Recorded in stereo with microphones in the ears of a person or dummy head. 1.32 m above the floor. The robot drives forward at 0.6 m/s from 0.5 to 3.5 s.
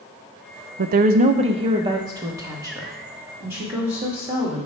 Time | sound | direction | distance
0.8 | a woman speaking | 50° right (ahead or behind) | 0.5 m